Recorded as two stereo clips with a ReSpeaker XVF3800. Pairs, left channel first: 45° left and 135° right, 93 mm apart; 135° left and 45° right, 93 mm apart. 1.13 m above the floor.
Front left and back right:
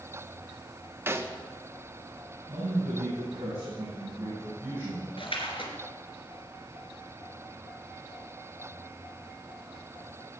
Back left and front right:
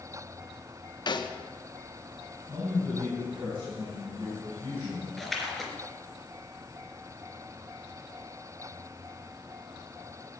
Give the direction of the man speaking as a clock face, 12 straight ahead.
3 o'clock.